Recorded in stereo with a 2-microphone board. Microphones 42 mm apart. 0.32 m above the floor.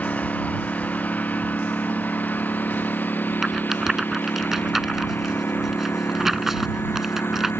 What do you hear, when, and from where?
0.0 s a lawn mower: 40° left (ahead or behind); by 7.6 s 75° left (ahead or behind)
3.4 s a rattle: 10° right (ahead or behind)